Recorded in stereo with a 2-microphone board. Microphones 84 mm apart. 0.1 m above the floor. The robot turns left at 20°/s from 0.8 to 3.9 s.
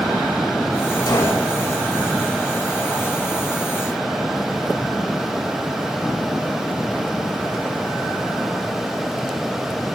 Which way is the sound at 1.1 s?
50° left (ahead or behind).